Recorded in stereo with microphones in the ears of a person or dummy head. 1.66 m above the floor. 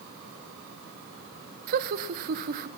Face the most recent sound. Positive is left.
turn(degrees=-50)  # may be behind; listen again after turning